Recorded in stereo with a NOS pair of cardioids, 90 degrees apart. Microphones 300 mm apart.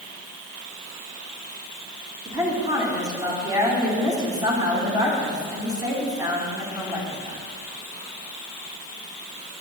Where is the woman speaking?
10° right, 3 m.